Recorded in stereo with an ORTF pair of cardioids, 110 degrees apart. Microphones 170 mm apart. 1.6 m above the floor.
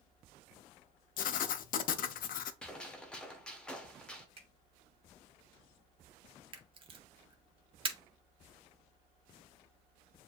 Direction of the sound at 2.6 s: 5° left.